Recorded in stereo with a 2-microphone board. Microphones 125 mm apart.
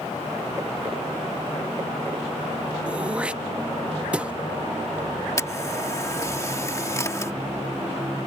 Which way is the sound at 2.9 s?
10° right (ahead or behind).